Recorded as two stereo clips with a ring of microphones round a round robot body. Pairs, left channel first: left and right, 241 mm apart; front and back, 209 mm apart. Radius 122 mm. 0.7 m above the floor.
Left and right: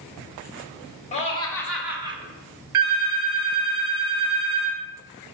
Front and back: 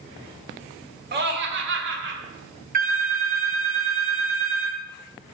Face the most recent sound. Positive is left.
turn(degrees=-125)